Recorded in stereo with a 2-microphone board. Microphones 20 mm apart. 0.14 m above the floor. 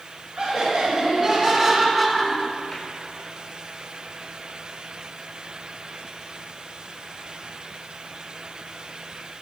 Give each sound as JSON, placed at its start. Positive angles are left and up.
{"t": 0.4, "sound": "laughter", "side_deg": -50, "distance_m": 1.8}